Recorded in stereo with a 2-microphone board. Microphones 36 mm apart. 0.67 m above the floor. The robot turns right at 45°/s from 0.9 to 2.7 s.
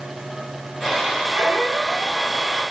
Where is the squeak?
55° right, 1.0 m; by 2.2 s 15° right, 1.0 m.